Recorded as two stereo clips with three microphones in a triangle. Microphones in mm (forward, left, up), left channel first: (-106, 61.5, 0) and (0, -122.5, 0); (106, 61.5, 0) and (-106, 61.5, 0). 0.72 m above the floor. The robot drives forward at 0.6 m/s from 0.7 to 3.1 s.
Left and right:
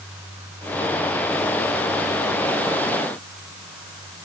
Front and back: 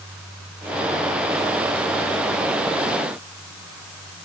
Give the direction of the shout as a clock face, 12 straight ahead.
No shout in this recording.